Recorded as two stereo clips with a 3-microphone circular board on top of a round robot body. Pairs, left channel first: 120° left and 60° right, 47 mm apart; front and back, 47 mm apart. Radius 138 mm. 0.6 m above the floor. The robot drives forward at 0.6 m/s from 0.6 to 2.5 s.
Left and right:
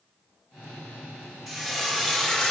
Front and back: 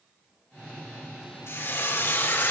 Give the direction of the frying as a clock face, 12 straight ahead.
11 o'clock.